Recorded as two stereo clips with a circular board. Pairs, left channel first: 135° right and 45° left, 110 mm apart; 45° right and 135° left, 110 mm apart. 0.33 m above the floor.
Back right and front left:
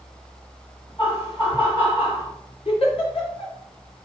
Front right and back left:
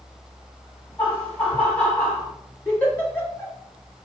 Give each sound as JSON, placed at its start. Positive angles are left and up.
{"t": 1.0, "sound": "laughter", "azimuth_deg": -120, "distance_m": 1.9}
{"t": 2.6, "sound": "a giggle", "azimuth_deg": -120, "distance_m": 1.2}